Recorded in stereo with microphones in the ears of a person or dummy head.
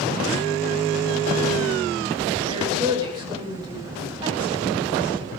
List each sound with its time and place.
2.5 s a woman speaking: 25° right (ahead or behind), 6 m